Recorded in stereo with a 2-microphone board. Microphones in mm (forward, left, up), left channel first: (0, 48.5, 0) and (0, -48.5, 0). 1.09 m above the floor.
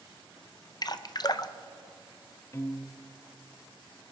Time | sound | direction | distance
0.8 | dripping | 45° left (ahead or behind) | 0.6 m
2.5 | a piano | 30° left (ahead or behind) | 0.8 m